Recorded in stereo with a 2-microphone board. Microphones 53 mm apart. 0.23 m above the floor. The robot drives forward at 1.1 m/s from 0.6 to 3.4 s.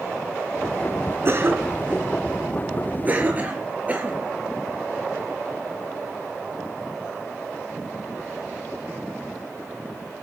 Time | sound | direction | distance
1.2 | a cough | 45° right (ahead or behind) | 3 m